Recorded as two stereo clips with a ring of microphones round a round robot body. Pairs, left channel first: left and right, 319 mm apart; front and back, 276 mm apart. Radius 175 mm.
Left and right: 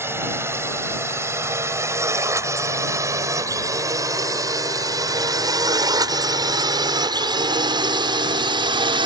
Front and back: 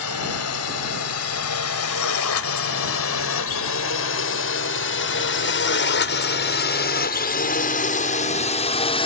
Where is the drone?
10° right; by 9.1 s 40° right.